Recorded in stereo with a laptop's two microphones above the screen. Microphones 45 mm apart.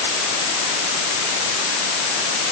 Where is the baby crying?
No baby crying in this recording.